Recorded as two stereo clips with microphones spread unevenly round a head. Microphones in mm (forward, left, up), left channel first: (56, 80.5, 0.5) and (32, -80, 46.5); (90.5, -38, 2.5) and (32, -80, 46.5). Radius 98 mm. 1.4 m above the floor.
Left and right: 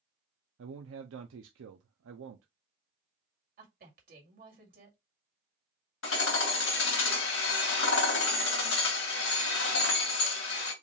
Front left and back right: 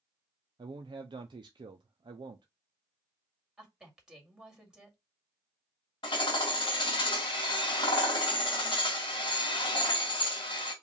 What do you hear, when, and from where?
0.6 s a man speaking: 105° right, 0.5 m
3.6 s a woman speaking: 70° right, 2.5 m
6.0 s hammering: 95° left, 1.9 m